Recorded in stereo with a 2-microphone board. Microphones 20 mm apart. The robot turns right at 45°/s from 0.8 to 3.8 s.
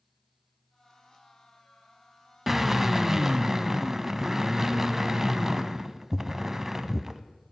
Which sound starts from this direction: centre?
A drill, at 2.5 s.